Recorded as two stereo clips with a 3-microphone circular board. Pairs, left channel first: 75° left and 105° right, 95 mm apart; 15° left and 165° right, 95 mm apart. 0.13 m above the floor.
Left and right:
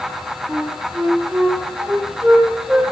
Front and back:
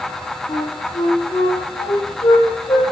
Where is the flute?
30° right, 3 m.